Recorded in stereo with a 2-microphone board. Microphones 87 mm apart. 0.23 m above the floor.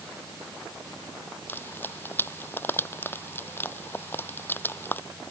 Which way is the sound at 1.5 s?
25° left (ahead or behind).